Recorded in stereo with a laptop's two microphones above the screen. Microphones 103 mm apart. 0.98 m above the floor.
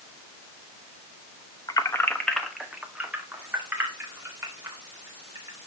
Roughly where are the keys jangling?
Left.